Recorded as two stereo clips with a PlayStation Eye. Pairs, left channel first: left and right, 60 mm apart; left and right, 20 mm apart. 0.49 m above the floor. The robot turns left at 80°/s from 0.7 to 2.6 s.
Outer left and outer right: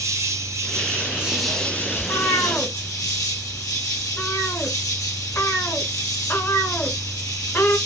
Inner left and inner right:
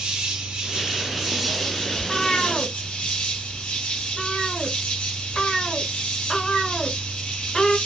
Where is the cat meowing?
80° left, 1.2 m; by 7.8 s 40° left (ahead or behind), 1.2 m.